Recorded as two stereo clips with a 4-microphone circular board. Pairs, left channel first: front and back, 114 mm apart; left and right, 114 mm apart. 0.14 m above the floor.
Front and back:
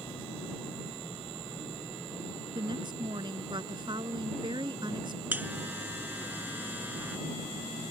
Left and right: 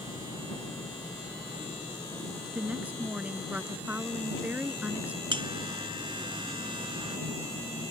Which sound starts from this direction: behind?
A woman speaking, at 2.5 s.